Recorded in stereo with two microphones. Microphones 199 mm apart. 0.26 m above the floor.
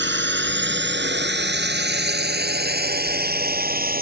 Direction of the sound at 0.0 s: 65° right (ahead or behind).